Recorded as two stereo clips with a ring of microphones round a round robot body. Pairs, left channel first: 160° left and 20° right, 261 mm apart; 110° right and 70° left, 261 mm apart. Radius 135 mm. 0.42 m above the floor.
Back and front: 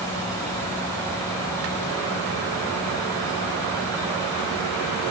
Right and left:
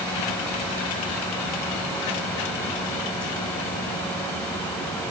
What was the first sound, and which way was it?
Only background noise.